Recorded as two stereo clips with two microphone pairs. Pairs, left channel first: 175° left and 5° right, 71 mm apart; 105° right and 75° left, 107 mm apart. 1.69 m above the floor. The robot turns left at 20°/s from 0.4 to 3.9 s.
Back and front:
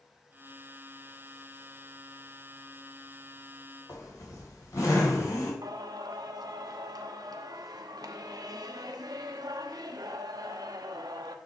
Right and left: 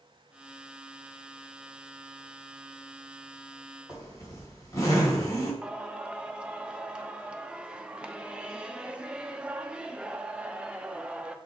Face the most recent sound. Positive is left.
turn(degrees=-5)